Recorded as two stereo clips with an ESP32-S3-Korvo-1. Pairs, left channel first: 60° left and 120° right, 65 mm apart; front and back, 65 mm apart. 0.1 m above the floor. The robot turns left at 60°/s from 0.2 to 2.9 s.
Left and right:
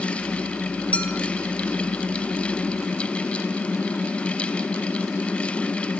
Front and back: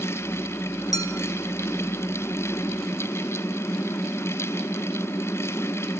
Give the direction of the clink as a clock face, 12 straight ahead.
12 o'clock.